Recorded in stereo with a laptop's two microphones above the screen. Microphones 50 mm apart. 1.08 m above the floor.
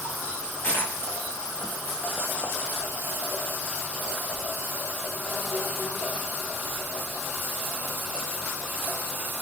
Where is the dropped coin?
65° left (ahead or behind), 5 m.